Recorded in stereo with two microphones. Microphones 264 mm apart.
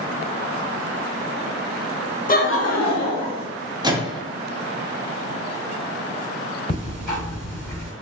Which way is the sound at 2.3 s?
30° left (ahead or behind).